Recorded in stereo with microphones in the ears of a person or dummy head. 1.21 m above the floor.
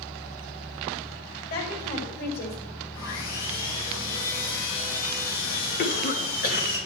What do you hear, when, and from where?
1.5 s a woman speaking: 50° left (ahead or behind), 5.5 m; by 2.6 s 55° left (ahead or behind), 5 m
2.9 s sawing: 80° left, 3.5 m
5.8 s a cough: 50° left (ahead or behind), 1.7 m